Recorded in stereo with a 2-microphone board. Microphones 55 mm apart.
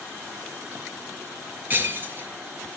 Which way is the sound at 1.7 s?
35° right (ahead or behind).